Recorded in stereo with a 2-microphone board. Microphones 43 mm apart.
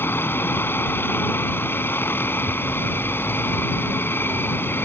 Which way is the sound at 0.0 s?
60° left (ahead or behind).